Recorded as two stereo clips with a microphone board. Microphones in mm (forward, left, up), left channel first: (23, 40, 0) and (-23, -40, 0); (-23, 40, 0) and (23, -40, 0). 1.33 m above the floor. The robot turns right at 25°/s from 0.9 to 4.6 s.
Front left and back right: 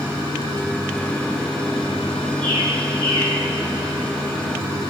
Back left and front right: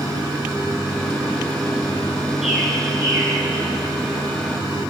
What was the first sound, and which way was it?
A bird, 145° right.